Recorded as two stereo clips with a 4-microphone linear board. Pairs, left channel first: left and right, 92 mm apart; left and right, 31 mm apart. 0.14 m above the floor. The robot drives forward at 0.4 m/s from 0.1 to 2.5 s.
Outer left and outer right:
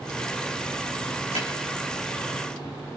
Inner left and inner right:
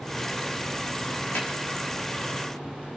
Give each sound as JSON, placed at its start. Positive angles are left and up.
{"t": 1.4, "sound": "a snare drum", "side_deg": 85, "distance_m": 4.5}